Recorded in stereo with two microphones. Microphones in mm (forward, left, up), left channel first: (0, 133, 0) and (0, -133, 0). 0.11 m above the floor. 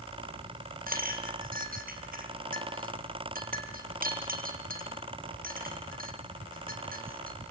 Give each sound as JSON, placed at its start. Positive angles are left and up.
{"t": 0.9, "sound": "a clink", "side_deg": -35, "distance_m": 2.5}